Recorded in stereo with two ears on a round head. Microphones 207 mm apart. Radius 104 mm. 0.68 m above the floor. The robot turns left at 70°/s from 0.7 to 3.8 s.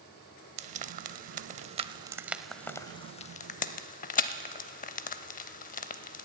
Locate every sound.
0.6 s frying: 30° right (ahead or behind), 0.5 m; by 6.3 s 35° left (ahead or behind), 0.5 m